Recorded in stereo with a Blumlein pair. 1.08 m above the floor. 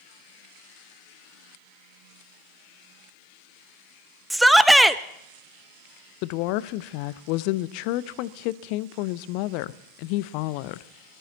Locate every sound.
4.3 s a shout: 5° right, 0.7 m
6.2 s a woman speaking: 45° left, 0.6 m